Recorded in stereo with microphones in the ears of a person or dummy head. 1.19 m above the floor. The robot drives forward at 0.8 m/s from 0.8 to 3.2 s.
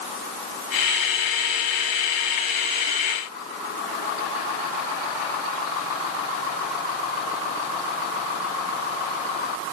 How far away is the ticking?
No ticking in this recording.